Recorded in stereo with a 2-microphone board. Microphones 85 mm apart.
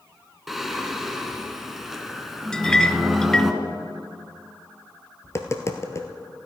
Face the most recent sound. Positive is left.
turn(degrees=35)  # may be behind; listen again after turning